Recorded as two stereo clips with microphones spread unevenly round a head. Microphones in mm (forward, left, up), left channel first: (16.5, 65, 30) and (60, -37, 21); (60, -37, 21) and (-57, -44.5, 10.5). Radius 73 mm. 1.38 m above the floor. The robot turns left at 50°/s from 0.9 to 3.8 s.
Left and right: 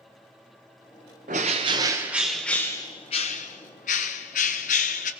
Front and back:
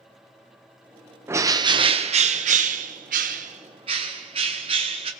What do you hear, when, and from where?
1.3 s a bird: 105° right, 0.7 m; by 5.1 s 130° left, 0.7 m